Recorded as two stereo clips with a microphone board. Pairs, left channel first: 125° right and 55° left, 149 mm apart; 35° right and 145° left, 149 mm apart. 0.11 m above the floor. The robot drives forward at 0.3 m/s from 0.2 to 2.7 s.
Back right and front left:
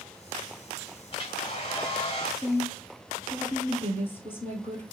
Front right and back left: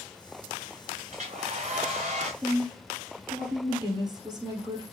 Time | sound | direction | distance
1.1 | a hair dryer | straight behind | 1.2 m
2.4 | a woman speaking | 175° left | 1.8 m